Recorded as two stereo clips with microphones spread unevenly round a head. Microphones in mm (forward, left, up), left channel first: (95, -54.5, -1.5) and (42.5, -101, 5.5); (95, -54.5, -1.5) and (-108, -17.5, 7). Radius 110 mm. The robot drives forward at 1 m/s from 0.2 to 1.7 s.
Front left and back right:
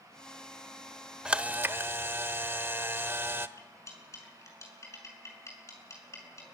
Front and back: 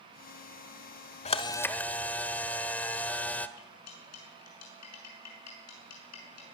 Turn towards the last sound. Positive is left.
turn(degrees=-5)